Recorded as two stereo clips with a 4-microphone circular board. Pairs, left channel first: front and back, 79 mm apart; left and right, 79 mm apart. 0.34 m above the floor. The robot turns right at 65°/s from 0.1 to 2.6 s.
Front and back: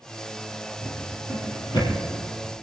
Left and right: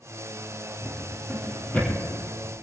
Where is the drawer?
35° right, 6.5 m; by 1.9 s 35° left, 6.5 m.